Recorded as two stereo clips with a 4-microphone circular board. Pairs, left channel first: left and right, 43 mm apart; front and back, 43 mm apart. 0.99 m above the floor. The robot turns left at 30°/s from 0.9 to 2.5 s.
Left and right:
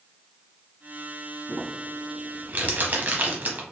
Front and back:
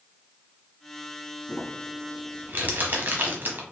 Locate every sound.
1.5 s crumpling: 105° right, 0.9 m; by 3.6 s 135° right, 0.9 m